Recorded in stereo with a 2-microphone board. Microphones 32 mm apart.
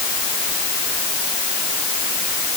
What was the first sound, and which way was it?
Only background noise.